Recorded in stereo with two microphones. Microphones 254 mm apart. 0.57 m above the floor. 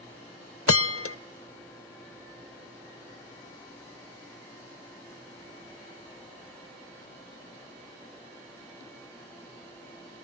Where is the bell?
60° left (ahead or behind), 0.6 m.